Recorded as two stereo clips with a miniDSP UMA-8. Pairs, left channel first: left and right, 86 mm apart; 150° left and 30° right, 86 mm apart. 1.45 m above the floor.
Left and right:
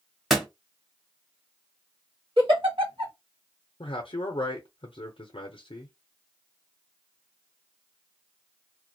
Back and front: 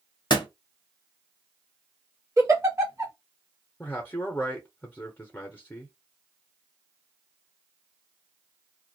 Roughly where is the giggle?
Right.